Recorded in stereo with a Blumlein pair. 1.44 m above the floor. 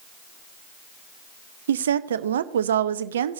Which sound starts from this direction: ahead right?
A woman speaking, at 1.7 s.